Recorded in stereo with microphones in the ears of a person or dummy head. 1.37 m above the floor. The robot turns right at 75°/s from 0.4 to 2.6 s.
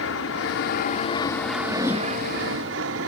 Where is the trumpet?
No trumpet in this recording.